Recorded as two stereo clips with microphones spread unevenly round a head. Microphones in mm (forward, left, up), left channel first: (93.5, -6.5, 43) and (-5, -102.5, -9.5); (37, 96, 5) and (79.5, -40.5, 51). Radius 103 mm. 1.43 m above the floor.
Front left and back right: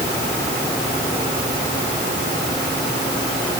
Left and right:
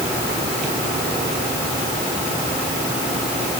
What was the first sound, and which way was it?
Only background noise.